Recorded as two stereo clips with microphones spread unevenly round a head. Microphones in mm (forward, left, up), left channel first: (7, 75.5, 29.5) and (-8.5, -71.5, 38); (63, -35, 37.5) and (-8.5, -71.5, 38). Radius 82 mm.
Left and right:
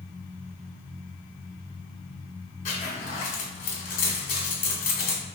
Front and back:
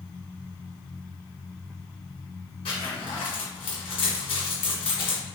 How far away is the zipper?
About 1.7 m.